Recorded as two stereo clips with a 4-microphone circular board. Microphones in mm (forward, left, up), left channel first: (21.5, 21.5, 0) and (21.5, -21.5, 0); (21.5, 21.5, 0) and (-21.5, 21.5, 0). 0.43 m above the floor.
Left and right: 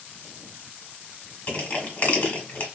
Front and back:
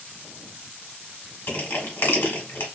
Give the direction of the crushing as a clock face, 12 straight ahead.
11 o'clock.